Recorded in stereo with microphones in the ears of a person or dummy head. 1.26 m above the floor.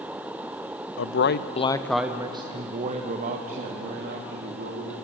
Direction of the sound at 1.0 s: 65° left (ahead or behind).